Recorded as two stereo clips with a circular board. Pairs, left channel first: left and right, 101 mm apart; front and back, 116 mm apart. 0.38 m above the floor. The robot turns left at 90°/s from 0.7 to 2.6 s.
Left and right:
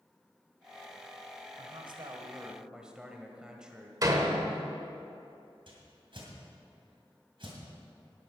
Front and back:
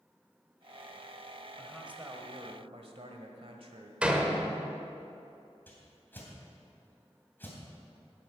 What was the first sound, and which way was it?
A man speaking, 75° right.